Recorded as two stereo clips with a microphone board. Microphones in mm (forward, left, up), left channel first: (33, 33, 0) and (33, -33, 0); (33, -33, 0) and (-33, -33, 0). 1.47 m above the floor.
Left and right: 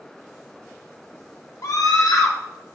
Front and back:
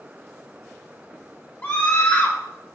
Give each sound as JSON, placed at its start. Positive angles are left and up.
{"t": 1.6, "sound": "a scream", "azimuth_deg": 60, "distance_m": 0.8}